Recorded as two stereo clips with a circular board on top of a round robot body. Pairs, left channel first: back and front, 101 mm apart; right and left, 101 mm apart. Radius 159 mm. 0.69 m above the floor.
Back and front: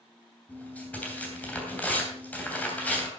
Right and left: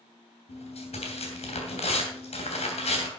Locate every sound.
0.5 s tearing paper: 105° right, 3 m